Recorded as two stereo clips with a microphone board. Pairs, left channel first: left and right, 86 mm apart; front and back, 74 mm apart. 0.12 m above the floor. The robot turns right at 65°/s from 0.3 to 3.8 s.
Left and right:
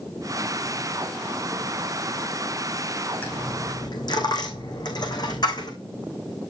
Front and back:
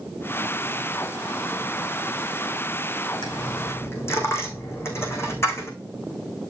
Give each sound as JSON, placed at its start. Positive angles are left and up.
{"t": 3.2, "sound": "a dropped coin", "azimuth_deg": 15, "distance_m": 3.5}